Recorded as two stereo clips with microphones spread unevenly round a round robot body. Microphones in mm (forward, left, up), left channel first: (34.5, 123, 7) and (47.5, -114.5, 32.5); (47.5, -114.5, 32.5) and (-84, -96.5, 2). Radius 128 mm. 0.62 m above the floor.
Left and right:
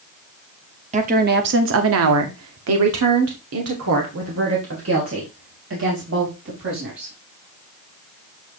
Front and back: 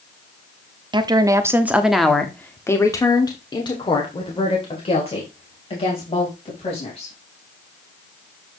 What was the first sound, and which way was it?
A woman speaking, 150° right.